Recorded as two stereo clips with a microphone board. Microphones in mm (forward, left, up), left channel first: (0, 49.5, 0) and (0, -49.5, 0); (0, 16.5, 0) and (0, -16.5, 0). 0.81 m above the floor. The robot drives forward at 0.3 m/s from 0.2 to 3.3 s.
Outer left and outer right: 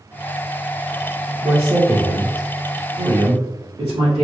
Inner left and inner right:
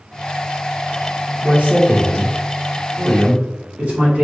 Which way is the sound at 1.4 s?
70° right (ahead or behind).